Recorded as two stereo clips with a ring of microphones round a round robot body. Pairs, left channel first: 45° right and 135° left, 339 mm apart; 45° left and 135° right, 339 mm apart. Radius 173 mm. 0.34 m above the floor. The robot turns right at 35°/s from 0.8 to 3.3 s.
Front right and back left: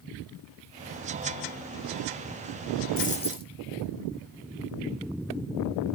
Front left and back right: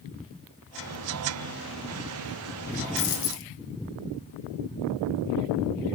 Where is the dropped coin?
20° left, 2.5 m; by 3.5 s 30° left, 2.5 m.